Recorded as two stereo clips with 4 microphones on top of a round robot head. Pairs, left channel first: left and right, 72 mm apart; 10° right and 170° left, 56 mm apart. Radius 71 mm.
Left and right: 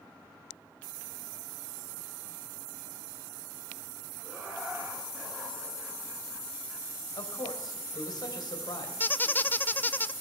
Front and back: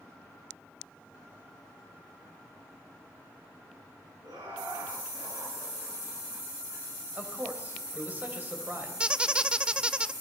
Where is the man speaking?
115° left, 3.5 m.